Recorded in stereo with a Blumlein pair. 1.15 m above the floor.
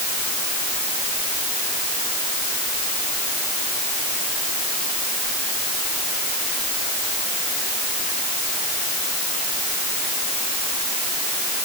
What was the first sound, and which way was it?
Only background noise.